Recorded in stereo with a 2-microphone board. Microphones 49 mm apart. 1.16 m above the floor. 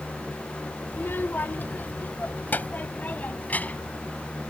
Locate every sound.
0.9 s a child speaking: 55° left (ahead or behind); by 4.0 s 35° left (ahead or behind)